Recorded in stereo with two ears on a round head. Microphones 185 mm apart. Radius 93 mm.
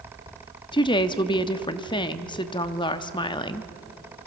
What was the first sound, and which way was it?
A woman speaking, 25° left (ahead or behind).